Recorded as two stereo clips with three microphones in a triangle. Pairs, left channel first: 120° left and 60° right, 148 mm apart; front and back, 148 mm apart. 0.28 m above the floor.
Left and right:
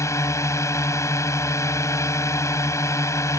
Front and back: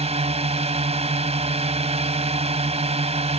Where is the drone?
Straight behind.